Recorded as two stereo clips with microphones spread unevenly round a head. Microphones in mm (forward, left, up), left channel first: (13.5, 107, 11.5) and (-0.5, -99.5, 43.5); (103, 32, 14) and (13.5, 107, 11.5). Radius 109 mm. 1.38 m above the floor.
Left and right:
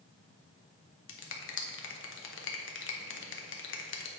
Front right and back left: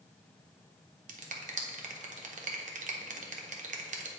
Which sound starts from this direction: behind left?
A finger snap, at 1.1 s.